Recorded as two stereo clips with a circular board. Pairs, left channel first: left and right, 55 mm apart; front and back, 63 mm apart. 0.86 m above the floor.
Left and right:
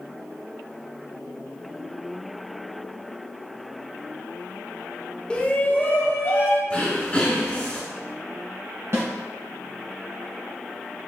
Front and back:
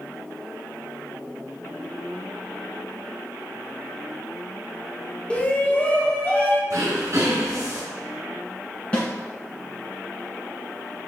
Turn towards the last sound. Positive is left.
turn(degrees=-70)